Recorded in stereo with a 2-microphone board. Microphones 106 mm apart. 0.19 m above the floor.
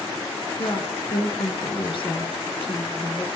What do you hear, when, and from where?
0.6 s a woman speaking: 55° left (ahead or behind), 2.5 m